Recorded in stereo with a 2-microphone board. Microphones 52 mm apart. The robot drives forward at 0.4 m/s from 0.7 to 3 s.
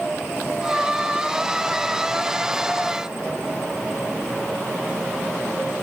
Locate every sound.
Only background noise.